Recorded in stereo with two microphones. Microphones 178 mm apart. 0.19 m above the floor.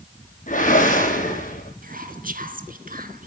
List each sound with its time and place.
0.5 s a whoosh: 50° left (ahead or behind), 5.5 m
1.8 s whispering: 55° right (ahead or behind), 2.0 m